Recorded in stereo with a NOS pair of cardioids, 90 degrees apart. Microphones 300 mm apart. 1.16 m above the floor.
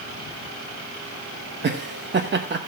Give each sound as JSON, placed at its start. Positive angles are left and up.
{"t": 1.6, "sound": "laughter", "azimuth_deg": -35, "distance_m": 1.1}